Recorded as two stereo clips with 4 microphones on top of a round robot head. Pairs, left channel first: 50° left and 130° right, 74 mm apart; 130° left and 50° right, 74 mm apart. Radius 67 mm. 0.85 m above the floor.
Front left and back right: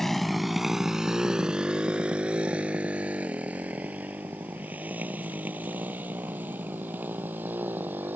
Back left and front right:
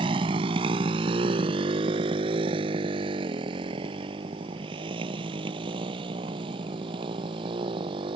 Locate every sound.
0.0 s a motorcycle: 35° right; by 8.2 s 65° right